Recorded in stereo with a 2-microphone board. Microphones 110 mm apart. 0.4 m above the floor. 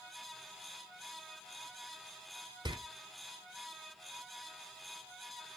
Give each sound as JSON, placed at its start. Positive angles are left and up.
{"t": 2.6, "sound": "a door slam", "side_deg": -45, "distance_m": 0.8}